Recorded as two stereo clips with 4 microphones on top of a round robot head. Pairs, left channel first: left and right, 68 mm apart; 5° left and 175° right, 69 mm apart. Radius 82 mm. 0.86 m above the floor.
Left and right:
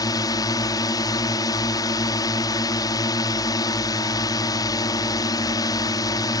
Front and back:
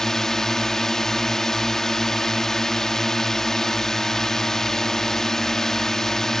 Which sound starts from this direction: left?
A drone, at 0.0 s.